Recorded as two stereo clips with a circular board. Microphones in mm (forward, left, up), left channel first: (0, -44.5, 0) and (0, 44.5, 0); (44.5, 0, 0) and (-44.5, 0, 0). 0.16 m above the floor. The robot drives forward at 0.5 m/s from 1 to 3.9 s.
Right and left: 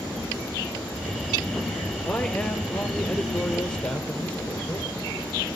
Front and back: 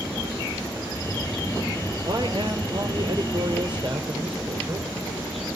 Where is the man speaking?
165° right, 3 m; by 4.9 s 170° right, 4 m.